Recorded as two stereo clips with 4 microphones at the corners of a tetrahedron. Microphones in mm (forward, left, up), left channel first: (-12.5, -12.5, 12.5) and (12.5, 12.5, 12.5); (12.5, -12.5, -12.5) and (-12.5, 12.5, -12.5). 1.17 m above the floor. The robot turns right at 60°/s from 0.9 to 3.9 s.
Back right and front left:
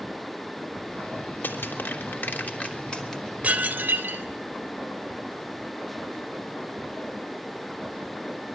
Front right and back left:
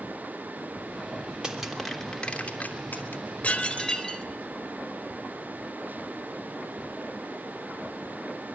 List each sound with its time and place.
1.4 s crushing: 155° right, 3 m; by 3.2 s 50° right, 3 m
3.4 s dishes clattering: 5° right, 3 m; by 4.2 s 20° left, 3 m